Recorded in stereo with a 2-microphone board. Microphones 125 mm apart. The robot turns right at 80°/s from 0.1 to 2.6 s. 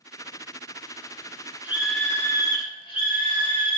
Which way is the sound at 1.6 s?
20° right.